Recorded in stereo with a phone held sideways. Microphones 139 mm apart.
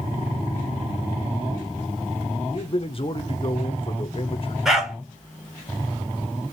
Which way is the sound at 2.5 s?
40° left (ahead or behind).